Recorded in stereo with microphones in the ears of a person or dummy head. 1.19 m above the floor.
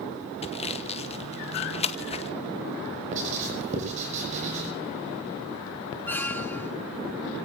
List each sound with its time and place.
0.4 s sawing: 30° left (ahead or behind), 1.1 m
3.1 s writing: 40° right (ahead or behind), 7 m
6.1 s a squeak: 10° left (ahead or behind), 1.1 m